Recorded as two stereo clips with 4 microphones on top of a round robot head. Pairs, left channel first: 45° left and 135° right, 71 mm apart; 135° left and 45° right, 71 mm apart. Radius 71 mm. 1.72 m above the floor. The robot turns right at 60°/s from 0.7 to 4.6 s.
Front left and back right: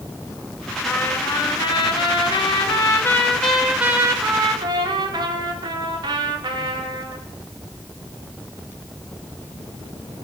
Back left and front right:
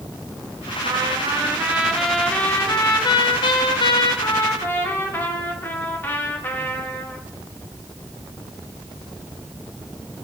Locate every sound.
0.8 s a trumpet: 25° right, 2 m; by 7.2 s 160° right, 2 m